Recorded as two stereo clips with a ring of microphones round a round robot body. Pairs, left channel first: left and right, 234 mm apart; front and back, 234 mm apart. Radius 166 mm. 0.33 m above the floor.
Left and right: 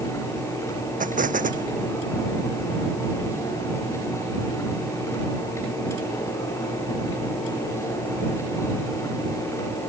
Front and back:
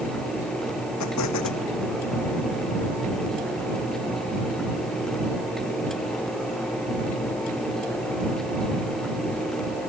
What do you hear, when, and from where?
1.0 s an explosion: 35° right